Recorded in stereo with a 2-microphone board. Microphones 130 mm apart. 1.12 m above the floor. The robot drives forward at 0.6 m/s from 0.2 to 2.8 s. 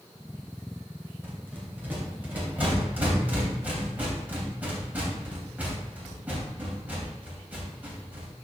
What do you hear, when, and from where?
1.2 s a rattle: 15° right (ahead or behind), 2.5 m; by 8.3 s 10° right (ahead or behind), 3.5 m